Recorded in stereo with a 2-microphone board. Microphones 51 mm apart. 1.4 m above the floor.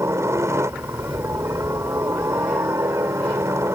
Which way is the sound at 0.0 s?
65° right (ahead or behind).